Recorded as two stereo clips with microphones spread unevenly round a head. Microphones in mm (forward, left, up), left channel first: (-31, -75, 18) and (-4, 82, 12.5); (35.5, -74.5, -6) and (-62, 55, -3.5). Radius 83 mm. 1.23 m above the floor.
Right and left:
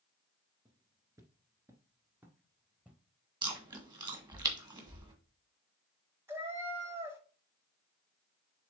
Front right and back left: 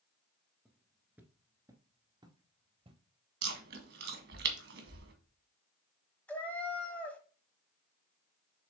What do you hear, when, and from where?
0.7 s footsteps: 40° left, 1.2 m; by 3.0 s 160° left, 1.5 m
3.4 s chewing: 145° left, 1.6 m
6.3 s a cat meowing: 20° left, 1.1 m